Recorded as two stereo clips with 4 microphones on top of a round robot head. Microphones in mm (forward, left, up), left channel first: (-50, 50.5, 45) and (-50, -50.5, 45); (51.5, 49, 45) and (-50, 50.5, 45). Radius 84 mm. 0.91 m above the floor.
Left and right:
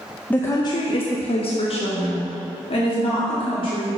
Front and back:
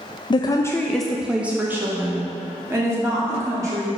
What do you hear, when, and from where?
0.3 s a woman speaking: 15° left, 0.5 m; by 3.9 s 120° left, 2.5 m